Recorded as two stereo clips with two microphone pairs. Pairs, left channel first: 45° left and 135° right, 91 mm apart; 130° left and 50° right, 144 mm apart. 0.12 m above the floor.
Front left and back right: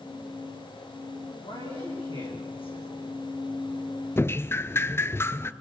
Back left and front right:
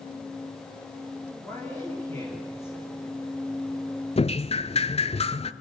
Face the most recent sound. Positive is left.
turn(degrees=100)